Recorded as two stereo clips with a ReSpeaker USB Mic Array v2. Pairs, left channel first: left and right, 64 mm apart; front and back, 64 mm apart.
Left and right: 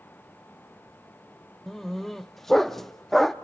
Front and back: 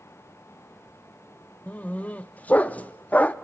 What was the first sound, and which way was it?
A dog barking, 10° left.